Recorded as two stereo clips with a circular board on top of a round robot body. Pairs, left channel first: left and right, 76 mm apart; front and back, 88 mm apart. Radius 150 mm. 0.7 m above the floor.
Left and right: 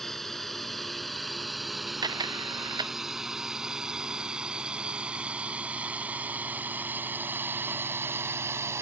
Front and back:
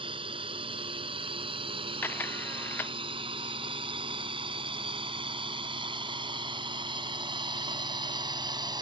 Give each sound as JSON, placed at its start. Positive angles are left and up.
{"t": 0.0, "sound": "a drone", "azimuth_deg": 175}
{"t": 2.0, "sound": "a camera shutter", "azimuth_deg": -70}